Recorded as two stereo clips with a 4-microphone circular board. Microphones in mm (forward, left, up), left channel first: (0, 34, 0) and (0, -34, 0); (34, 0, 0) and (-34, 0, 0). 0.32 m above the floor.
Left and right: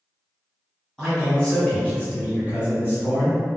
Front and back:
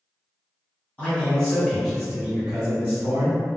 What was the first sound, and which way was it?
A man speaking, 20° left.